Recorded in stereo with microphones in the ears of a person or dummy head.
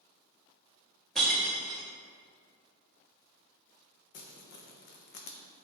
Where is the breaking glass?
5° left (ahead or behind), 1.0 m.